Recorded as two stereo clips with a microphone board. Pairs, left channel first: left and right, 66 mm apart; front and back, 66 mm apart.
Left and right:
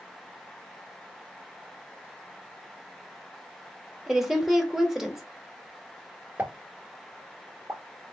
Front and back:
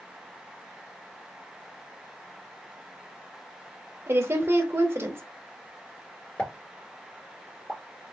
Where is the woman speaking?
170° right, 1.0 m.